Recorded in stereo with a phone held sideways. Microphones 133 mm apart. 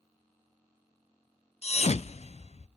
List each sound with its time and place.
1.6 s a thud: 55° left (ahead or behind), 0.5 m